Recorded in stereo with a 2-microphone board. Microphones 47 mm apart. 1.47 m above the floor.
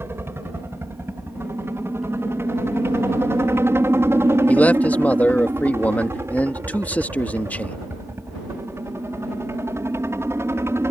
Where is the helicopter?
60° right (ahead or behind); by 10.9 s 70° right (ahead or behind).